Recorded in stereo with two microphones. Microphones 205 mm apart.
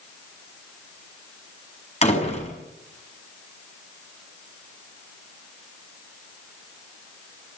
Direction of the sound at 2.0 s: 30° left (ahead or behind).